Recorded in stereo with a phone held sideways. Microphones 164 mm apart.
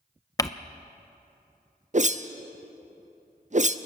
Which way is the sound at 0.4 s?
20° left (ahead or behind).